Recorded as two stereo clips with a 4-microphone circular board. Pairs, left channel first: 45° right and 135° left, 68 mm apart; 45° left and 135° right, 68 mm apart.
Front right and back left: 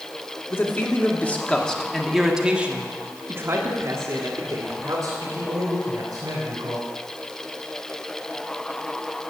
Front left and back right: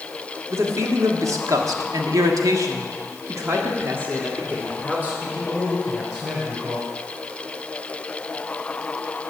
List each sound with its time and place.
0.5 s a man speaking: 95° right, 1.9 m; by 6.8 s 145° left, 3.5 m